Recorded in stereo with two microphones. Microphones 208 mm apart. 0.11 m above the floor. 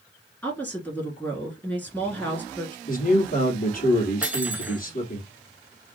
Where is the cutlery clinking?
5° right (ahead or behind), 0.7 m.